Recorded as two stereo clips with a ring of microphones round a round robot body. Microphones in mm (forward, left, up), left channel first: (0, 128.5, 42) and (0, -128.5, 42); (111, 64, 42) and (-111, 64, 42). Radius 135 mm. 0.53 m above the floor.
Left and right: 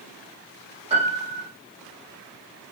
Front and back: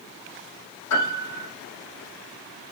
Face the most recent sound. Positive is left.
turn(degrees=-20)